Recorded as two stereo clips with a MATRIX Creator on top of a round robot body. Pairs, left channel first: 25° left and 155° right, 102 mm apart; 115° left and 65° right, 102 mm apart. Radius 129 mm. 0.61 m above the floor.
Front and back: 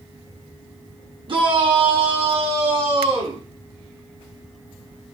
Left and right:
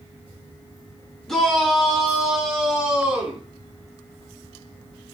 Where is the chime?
No chime in this recording.